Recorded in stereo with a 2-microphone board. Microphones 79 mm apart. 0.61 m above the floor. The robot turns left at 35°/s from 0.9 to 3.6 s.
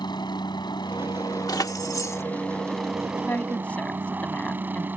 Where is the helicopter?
70° left; by 5.0 s 25° right.